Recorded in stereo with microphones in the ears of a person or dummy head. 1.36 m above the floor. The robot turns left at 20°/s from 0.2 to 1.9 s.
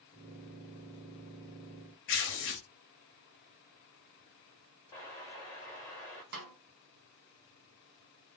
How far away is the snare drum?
About 0.8 m.